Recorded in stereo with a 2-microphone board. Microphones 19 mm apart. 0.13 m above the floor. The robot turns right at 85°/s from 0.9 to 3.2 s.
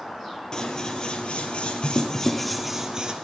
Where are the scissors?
40° left, 1.7 m; by 3.1 s 125° right, 1.7 m.